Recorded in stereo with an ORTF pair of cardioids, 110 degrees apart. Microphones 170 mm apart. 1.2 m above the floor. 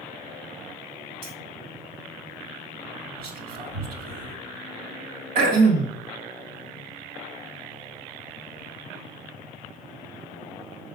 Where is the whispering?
65° right, 3 m.